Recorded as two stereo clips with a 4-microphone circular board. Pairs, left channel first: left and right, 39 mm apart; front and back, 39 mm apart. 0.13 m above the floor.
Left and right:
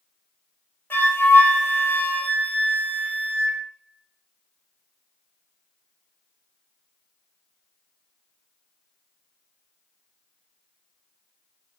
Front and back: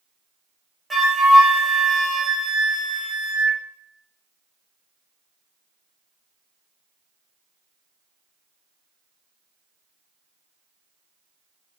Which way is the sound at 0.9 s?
95° left.